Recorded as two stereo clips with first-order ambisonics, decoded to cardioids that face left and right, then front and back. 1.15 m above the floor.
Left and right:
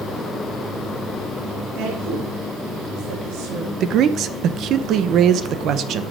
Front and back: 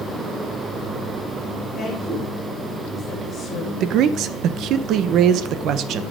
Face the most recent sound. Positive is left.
turn(degrees=-140)